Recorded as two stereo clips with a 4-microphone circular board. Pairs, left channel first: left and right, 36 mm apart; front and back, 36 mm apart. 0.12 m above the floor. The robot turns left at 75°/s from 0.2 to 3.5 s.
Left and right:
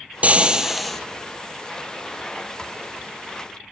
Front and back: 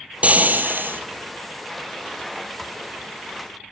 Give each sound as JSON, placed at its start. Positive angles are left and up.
{"t": 0.2, "sound": "frying", "azimuth_deg": -135, "distance_m": 0.8}